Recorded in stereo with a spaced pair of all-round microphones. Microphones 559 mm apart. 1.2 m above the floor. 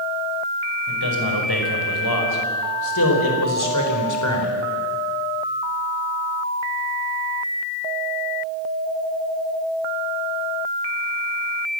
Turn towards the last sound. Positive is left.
turn(degrees=25)  # may be behind; listen again after turning